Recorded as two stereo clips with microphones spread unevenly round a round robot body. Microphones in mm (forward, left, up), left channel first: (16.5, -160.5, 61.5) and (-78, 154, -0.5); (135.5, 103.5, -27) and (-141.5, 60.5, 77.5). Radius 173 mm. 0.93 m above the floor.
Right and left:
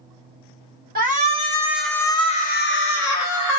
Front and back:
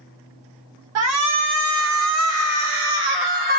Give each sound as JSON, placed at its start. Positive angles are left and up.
{"t": 0.9, "sound": "a shout", "azimuth_deg": 145, "distance_m": 1.2}